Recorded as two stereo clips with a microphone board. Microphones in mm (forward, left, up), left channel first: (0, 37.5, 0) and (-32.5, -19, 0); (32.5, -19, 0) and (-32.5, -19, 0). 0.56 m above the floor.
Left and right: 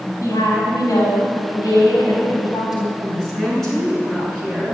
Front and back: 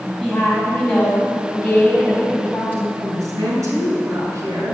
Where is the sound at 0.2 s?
80° left, 4 m; by 2.9 s 65° left, 4.5 m.